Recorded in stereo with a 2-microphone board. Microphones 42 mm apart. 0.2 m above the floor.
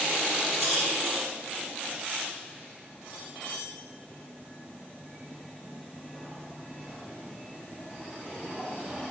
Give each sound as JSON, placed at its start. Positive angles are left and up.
{"t": 0.5, "sound": "a rattle", "side_deg": -5, "distance_m": 4.5}